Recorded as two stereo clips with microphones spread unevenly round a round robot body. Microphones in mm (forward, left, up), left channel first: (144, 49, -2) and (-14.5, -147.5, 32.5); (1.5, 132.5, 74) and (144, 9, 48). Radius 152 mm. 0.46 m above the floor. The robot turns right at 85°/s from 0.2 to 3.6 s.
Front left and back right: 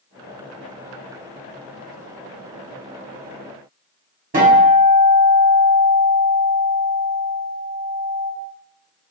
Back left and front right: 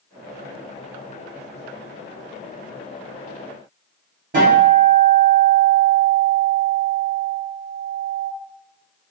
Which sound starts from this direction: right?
A guitar, at 4.3 s.